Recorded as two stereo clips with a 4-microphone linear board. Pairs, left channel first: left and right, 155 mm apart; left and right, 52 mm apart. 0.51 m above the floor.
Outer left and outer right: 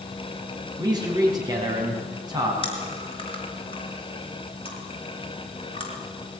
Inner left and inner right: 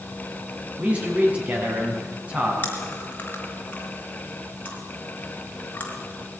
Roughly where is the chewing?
Left.